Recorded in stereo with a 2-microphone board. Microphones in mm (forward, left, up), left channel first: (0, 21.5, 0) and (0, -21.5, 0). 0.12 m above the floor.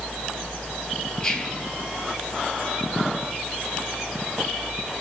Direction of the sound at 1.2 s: 15° left (ahead or behind).